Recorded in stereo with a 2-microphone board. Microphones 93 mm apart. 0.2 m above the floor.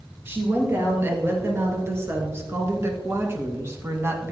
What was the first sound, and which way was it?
A woman speaking, 25° right (ahead or behind).